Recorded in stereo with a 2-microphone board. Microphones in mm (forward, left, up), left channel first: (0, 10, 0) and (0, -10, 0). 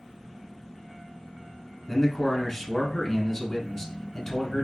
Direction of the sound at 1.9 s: 20° left (ahead or behind).